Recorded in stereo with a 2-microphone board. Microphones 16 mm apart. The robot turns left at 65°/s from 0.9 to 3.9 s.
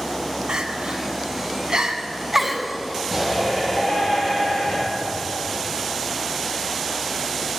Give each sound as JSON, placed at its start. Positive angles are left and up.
{"t": 0.5, "sound": "crying", "side_deg": -65, "distance_m": 1.2}
{"t": 3.1, "sound": "a shout", "azimuth_deg": -175, "distance_m": 6.5}